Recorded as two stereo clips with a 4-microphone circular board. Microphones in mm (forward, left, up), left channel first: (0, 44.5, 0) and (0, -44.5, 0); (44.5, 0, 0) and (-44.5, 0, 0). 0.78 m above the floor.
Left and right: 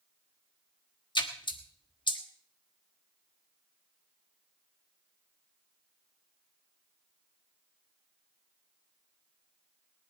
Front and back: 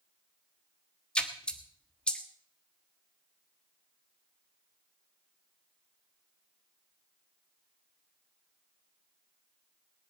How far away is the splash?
About 1.3 m.